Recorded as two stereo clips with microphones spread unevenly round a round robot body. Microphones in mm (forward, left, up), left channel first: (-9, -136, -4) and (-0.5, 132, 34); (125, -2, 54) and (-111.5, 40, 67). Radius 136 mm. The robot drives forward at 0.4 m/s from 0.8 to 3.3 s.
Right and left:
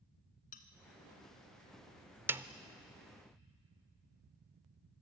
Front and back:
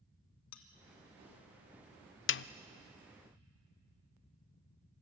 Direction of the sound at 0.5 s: 30° right.